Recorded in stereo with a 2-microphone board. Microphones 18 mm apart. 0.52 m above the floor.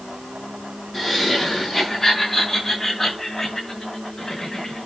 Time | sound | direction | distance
0.9 | laughter | 5° left (ahead or behind) | 4 m